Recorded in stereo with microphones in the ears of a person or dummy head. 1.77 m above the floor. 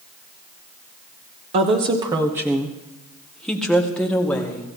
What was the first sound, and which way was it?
A woman speaking, 35° right (ahead or behind).